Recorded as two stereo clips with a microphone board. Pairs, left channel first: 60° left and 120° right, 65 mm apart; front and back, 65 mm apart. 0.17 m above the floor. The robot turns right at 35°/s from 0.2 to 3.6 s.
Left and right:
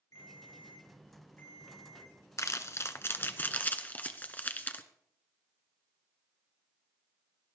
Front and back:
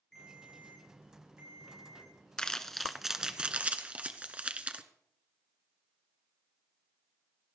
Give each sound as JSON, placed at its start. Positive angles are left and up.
{"t": 0.1, "sound": "a ringtone", "azimuth_deg": 80, "distance_m": 6.5}
{"t": 2.4, "sound": "crumpling", "azimuth_deg": 75, "distance_m": 1.1}